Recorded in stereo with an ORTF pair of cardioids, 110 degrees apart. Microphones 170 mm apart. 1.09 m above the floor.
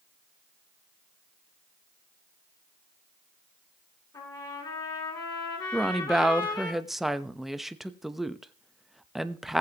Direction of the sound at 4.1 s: 25° left.